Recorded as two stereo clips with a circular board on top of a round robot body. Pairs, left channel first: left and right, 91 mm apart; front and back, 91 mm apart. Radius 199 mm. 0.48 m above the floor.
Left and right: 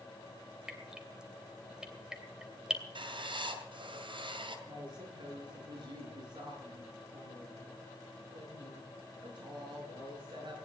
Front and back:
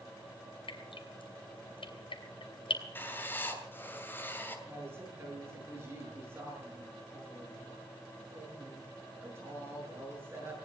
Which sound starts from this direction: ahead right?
Writing, at 3.0 s.